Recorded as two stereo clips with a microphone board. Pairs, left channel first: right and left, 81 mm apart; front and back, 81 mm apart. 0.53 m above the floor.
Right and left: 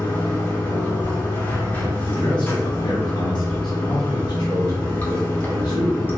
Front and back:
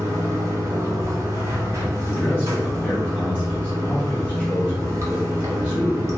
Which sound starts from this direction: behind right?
Running water, at 0.0 s.